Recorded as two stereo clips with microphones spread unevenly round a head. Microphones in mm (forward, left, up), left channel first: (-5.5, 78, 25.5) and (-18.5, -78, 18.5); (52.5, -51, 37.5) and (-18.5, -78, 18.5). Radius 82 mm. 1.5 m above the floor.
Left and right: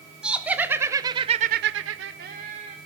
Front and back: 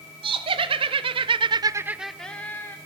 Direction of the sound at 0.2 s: Straight behind.